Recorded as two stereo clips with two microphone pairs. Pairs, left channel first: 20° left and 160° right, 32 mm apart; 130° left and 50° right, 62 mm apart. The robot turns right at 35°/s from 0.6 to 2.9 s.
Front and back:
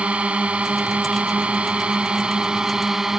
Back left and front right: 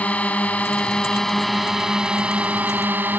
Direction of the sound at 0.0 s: 175° right.